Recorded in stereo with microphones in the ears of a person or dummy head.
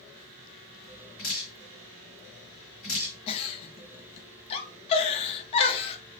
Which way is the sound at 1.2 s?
40° left (ahead or behind).